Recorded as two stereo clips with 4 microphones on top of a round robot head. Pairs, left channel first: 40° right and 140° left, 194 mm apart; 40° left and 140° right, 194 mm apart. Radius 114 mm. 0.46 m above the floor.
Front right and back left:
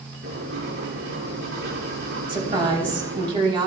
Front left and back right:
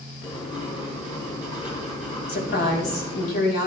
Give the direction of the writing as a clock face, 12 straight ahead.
9 o'clock.